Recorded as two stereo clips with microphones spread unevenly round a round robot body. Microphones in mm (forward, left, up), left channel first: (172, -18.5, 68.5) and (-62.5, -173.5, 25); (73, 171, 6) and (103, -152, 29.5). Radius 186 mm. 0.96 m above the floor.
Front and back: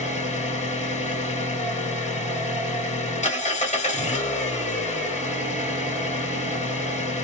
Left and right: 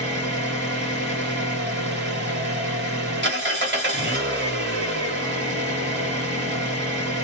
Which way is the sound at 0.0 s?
30° right.